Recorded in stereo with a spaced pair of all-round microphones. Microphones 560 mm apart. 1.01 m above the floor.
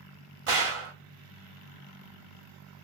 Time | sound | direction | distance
0.5 | a gunshot | 65° right (ahead or behind) | 0.7 m